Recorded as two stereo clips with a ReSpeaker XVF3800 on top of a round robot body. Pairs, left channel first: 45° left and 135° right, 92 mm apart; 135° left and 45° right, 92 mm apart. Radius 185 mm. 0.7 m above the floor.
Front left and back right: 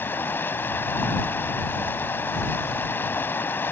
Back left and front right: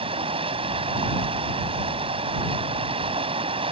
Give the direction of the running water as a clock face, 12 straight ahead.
1 o'clock.